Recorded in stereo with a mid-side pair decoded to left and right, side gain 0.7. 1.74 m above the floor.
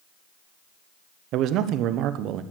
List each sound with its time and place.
1.3 s a man speaking: 55° right, 1.1 m